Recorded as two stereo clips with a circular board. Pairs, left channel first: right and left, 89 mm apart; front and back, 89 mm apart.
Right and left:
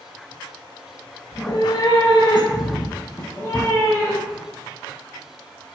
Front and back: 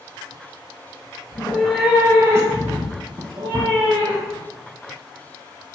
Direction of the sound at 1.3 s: 60° right.